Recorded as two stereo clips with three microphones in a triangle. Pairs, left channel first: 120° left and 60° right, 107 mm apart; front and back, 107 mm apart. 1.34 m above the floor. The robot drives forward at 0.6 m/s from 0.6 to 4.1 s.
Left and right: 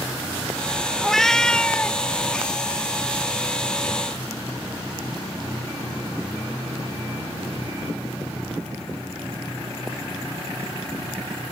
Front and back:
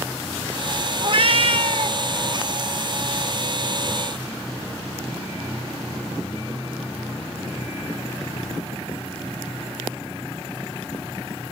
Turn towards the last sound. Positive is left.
turn(degrees=-170)